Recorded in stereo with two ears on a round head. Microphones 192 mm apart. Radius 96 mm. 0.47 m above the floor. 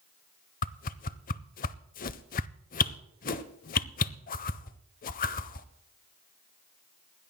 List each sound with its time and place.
0.6 s a whoosh: 40° left (ahead or behind), 0.6 m